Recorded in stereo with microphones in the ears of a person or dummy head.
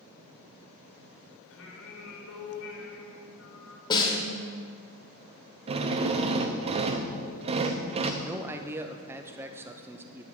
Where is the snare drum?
25° left (ahead or behind), 1.8 m.